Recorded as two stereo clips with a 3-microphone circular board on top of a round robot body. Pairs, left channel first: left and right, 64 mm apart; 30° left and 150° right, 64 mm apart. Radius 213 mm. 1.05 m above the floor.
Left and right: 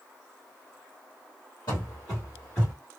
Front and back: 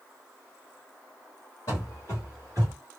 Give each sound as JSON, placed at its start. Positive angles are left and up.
{"t": 1.7, "sound": "running footsteps", "azimuth_deg": 75, "distance_m": 1.3}